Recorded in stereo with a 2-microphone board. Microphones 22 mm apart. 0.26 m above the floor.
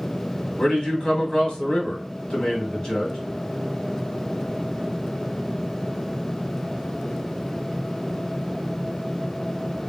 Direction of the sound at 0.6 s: 45° left (ahead or behind).